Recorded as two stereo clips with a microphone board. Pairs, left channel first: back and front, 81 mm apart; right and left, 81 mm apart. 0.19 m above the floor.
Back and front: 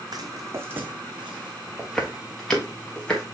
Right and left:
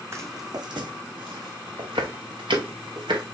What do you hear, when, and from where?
0.1 s footsteps: 35° left, 0.8 m; by 3.2 s 100° left, 2.5 m